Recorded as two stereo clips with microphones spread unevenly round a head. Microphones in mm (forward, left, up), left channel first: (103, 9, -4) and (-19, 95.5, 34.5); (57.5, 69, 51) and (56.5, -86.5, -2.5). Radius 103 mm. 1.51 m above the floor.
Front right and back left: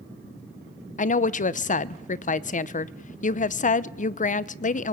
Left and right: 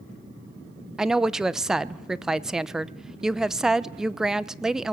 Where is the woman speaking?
5° left, 0.7 m.